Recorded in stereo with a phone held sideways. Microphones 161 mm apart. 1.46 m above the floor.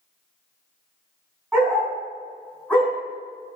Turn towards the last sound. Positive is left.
turn(degrees=10)  # may be behind; listen again after turning